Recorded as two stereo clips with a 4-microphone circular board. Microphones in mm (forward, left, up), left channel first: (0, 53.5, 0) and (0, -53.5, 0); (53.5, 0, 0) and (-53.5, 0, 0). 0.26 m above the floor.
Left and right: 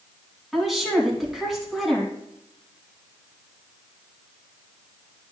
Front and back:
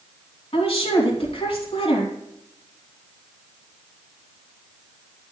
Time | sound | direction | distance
0.5 | a woman speaking | straight ahead | 3 m